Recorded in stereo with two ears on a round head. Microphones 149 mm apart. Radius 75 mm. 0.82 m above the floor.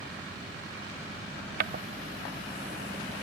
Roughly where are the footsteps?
Right.